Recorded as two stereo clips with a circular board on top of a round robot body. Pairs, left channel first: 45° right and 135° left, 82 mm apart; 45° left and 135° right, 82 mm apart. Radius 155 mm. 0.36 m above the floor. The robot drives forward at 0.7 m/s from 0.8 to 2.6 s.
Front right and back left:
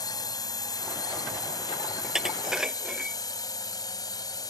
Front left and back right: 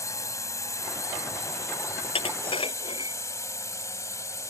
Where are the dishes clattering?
50° left; by 3.2 s 55° left.